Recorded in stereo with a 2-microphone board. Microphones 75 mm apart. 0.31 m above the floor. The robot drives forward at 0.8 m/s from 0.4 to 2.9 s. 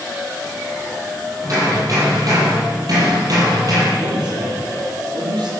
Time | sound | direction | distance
1.4 | hammering | 45° right (ahead or behind) | 8.5 m
4.0 | a man speaking | 65° right (ahead or behind) | 7.5 m